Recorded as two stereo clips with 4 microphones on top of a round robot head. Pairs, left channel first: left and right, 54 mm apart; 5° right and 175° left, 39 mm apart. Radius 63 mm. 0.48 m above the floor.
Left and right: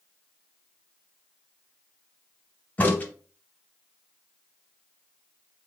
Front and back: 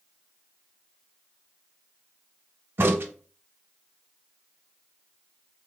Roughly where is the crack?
Behind left.